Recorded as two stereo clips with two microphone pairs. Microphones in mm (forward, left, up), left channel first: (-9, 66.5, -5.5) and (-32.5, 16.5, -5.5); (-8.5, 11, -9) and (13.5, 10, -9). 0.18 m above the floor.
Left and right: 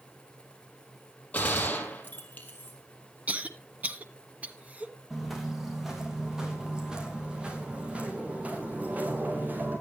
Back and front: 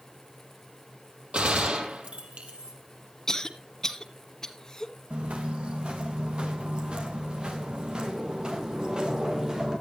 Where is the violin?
No violin in this recording.